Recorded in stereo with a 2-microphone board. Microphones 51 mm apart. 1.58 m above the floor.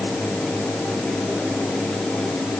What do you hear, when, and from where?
Only background noise.